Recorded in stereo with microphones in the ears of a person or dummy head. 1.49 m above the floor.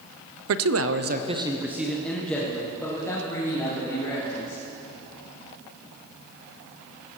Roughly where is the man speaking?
Right.